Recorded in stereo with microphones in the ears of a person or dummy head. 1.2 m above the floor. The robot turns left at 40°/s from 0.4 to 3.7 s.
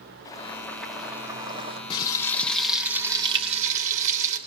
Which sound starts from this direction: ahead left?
Frying, at 1.9 s.